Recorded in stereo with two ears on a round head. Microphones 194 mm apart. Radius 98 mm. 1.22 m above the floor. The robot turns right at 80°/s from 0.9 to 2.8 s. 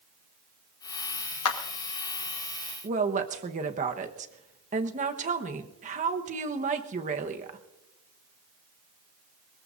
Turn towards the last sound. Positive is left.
turn(degrees=-35)  # may be behind; listen again after turning